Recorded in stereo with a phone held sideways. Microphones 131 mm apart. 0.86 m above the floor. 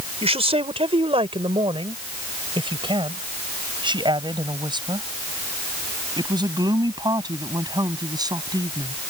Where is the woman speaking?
50° right (ahead or behind); by 8.9 s 30° right (ahead or behind).